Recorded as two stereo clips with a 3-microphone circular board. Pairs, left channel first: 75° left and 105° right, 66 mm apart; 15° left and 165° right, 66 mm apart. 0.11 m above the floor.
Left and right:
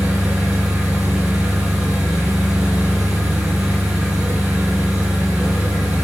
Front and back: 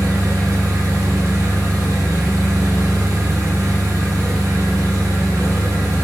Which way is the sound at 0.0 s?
170° right.